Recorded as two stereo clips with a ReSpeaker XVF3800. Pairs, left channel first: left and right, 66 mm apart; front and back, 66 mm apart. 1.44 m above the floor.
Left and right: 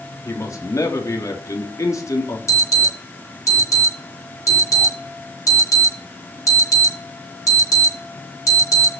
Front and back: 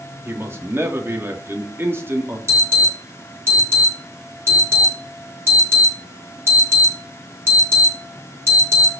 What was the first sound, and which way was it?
A man speaking, 125° left.